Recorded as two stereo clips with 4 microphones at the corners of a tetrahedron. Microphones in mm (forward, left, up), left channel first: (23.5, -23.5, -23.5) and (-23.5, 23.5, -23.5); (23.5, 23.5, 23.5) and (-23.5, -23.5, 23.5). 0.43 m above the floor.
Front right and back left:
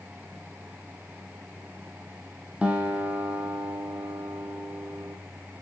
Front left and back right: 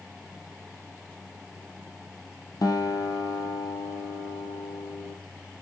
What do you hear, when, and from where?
2.6 s a guitar: 65° left, 2.5 m